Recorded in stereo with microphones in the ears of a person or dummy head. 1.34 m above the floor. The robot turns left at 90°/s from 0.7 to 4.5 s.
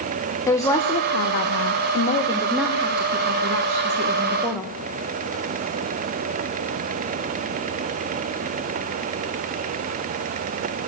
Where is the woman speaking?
170° left, 0.9 m; by 4.7 s 175° right, 0.9 m.